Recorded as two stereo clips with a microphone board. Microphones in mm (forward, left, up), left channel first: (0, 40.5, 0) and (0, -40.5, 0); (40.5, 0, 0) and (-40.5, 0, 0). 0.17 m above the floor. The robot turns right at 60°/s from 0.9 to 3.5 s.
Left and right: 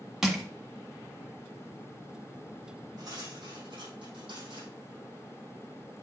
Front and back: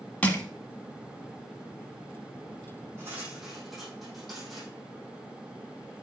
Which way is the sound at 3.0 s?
125° right.